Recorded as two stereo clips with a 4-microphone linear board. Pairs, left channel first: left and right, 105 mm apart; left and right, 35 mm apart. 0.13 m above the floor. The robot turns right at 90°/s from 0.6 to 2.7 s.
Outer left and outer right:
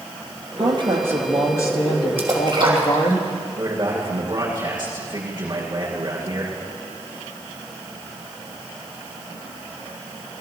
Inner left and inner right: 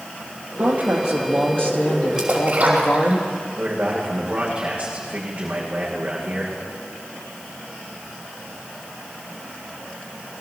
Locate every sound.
0.6 s a woman speaking: 65° right, 3 m; by 3.2 s 125° left, 3 m
2.2 s a splash: 20° right (ahead or behind), 3 m; by 3.1 s 55° right (ahead or behind), 3 m
3.6 s a man speaking: 40° right (ahead or behind), 8 m